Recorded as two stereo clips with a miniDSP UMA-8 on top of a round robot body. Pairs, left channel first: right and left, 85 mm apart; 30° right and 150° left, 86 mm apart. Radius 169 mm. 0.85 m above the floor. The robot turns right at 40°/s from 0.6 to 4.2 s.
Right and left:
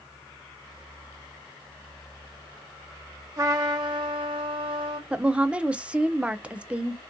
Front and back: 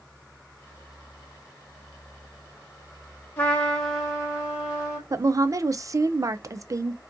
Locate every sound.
3.4 s a trumpet: 35° left, 0.7 m; by 5.0 s 70° left, 0.7 m
5.1 s a woman speaking: 160° left, 0.5 m